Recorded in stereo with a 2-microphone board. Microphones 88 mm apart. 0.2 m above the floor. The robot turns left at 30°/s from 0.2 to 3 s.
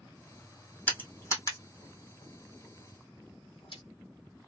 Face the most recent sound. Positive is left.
turn(degrees=80)